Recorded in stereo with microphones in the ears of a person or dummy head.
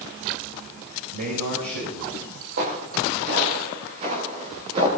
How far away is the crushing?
I don't hear crushing.